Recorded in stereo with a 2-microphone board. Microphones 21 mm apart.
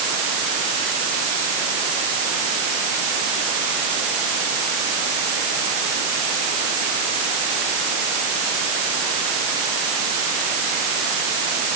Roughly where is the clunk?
No clunk in this recording.